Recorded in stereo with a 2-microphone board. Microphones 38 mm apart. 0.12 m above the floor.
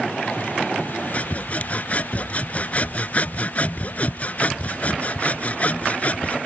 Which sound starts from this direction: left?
Sawing, at 1.1 s.